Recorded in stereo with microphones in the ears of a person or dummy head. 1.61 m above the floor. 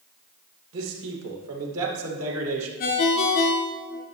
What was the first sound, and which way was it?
A man speaking, 75° right (ahead or behind).